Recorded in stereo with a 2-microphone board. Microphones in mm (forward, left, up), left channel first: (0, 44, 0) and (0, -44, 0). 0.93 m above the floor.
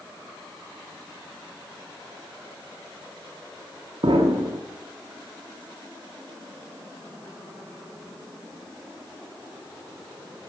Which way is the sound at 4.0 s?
80° right.